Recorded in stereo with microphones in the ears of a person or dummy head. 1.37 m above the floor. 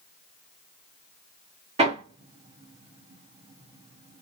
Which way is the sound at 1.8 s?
25° right (ahead or behind).